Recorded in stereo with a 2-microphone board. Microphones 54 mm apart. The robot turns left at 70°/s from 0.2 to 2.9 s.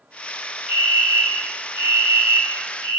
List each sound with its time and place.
0.7 s a fire alarm: 15° right, 3 m; by 3.0 s 170° right, 3 m